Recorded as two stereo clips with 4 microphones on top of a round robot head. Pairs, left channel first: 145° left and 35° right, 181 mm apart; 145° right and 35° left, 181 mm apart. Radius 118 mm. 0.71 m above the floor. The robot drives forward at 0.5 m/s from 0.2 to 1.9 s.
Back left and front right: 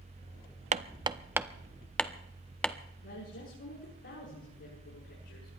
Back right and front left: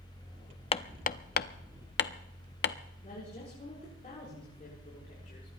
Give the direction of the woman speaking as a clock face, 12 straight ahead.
7 o'clock.